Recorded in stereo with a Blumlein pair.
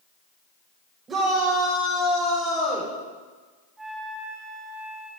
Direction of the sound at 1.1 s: 20° right.